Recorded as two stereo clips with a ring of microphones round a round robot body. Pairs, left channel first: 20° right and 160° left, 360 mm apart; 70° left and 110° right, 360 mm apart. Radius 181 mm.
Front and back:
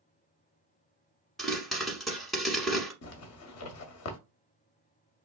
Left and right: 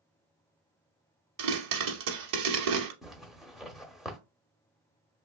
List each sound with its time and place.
1.4 s a pop: 110° right, 1.0 m
3.0 s a zipper: 25° right, 0.7 m